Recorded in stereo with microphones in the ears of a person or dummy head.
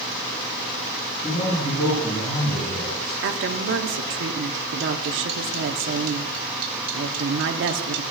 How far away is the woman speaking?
About 0.8 m.